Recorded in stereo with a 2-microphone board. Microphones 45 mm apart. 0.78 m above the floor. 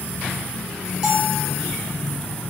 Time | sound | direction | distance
1.0 | a bell | 10° right (ahead or behind) | 1.1 m